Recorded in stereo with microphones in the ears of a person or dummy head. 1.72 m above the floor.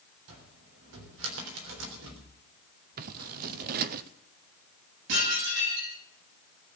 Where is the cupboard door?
75° right (ahead or behind), 3.5 m.